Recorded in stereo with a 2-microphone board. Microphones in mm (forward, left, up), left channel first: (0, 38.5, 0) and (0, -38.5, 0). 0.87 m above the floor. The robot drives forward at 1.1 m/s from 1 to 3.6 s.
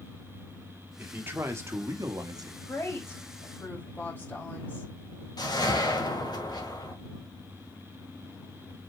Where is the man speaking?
25° right (ahead or behind), 2 m; by 2.6 s 60° right (ahead or behind), 1.1 m.